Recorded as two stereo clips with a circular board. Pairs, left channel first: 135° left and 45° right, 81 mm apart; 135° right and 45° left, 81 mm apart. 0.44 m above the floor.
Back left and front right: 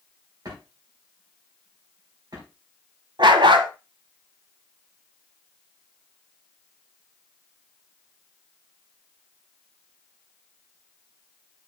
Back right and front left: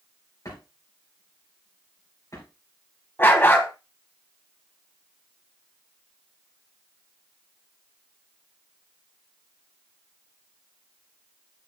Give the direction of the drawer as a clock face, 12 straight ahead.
3 o'clock.